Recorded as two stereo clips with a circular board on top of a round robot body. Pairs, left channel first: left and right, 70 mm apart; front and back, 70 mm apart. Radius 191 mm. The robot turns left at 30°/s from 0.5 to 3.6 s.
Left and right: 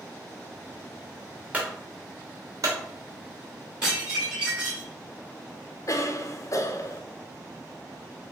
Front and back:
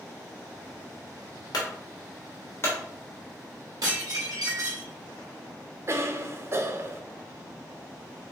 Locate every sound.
1.5 s a clunk: 20° right, 0.9 m; by 2.8 s 60° right, 0.9 m
3.8 s dishes clattering: 165° right, 2 m
5.9 s a cough: 130° left, 0.7 m